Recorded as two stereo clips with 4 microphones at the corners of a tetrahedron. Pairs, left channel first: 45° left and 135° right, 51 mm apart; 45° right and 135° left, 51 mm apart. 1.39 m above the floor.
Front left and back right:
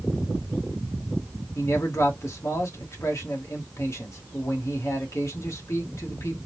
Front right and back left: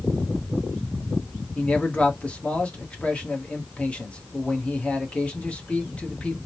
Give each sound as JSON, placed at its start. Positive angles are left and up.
{"t": 1.6, "sound": "a man speaking", "azimuth_deg": 25, "distance_m": 1.3}